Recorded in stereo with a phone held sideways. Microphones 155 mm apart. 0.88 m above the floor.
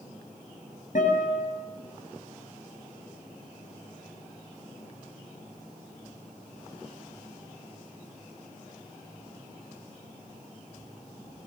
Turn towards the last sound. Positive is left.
turn(degrees=60)  # may be behind; listen again after turning